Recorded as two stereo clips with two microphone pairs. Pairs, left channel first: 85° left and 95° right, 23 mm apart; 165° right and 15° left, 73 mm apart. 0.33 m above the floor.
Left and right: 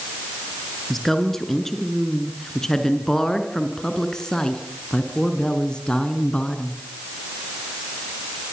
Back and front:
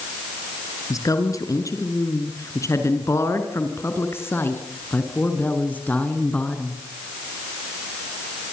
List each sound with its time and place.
0.9 s a woman speaking: 160° left, 5.5 m; by 6.8 s 125° left, 4.5 m